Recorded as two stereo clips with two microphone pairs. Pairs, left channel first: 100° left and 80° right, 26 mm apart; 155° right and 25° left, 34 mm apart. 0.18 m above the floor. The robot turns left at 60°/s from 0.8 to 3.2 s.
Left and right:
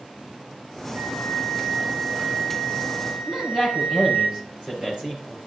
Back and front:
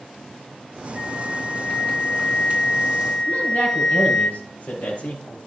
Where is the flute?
40° left, 6 m; by 4.3 s 100° right, 6 m.